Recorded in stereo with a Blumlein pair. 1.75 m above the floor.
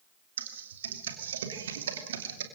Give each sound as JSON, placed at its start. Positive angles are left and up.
{"t": 0.4, "sound": "typing on a keyboard", "azimuth_deg": -60, "distance_m": 2.5}